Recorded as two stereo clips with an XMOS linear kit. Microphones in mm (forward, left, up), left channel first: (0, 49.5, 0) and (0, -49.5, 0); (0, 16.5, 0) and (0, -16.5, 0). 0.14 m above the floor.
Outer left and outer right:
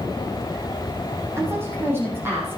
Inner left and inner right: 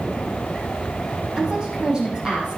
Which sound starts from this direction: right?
A woman speaking, at 1.4 s.